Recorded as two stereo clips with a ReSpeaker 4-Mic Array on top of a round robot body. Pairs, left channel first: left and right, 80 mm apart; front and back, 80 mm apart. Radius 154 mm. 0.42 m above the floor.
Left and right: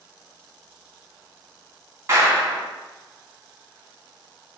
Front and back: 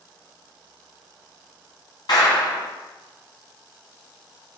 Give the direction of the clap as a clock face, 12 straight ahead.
1 o'clock.